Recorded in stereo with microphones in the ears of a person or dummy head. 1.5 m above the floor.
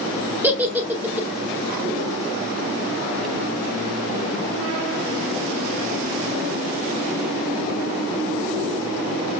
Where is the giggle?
10° right (ahead or behind), 0.5 m.